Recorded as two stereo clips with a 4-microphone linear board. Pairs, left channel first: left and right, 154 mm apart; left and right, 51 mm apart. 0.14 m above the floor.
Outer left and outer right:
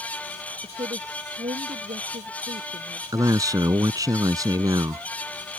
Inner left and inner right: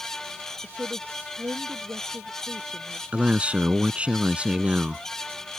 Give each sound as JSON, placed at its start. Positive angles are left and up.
{"t": 0.6, "sound": "a woman speaking", "side_deg": -40}
{"t": 3.1, "sound": "a man speaking", "side_deg": -25}